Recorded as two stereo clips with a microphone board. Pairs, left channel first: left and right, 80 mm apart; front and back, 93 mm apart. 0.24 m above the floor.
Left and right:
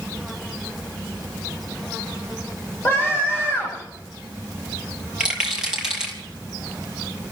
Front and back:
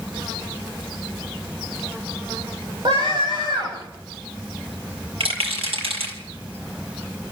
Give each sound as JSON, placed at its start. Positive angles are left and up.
{"t": 2.9, "sound": "a scream", "azimuth_deg": 155, "distance_m": 9.0}
{"t": 5.2, "sound": "a rattle", "azimuth_deg": -170, "distance_m": 5.0}